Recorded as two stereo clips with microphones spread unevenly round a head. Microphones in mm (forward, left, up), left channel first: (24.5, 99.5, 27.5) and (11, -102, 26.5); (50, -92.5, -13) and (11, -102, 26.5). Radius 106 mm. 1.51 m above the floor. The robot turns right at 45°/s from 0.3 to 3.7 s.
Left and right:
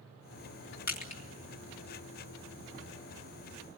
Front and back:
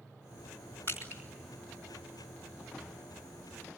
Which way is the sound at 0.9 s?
135° left.